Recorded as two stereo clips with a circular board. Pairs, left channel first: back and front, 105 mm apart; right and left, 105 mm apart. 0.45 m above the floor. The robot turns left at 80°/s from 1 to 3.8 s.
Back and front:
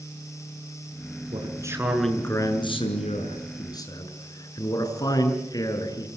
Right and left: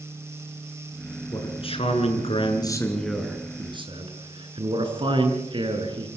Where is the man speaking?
35° right, 7.5 m; by 6.1 s 125° left, 7.5 m.